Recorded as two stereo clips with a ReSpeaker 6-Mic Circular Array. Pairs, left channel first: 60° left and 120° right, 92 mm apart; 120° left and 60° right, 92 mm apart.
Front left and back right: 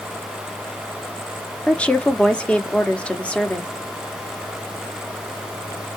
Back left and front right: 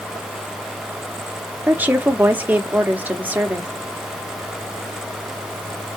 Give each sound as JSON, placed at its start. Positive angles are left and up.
{"t": 1.7, "sound": "a woman speaking", "azimuth_deg": -5, "distance_m": 0.9}